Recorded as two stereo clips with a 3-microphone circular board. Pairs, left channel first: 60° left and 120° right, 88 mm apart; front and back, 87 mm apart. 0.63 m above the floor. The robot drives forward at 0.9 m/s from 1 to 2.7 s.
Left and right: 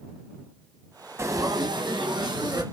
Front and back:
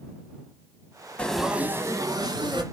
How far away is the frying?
About 0.7 m.